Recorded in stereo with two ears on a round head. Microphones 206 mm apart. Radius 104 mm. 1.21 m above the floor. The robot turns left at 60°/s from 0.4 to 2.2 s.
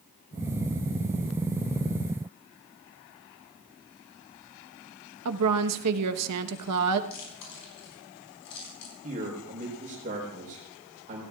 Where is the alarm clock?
I don't hear an alarm clock.